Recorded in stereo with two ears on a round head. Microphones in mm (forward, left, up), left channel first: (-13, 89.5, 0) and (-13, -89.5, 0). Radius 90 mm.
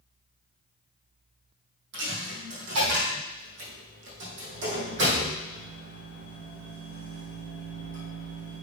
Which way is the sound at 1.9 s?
65° right (ahead or behind).